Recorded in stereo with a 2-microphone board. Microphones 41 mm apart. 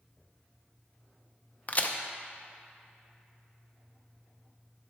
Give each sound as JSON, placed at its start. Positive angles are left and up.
{"t": 1.7, "sound": "a crack", "side_deg": 40, "distance_m": 0.5}